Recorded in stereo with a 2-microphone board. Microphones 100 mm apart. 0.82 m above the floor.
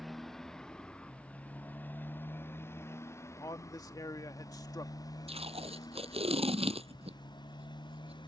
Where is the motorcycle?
Centre (ahead or behind); by 8.3 s 50° left (ahead or behind).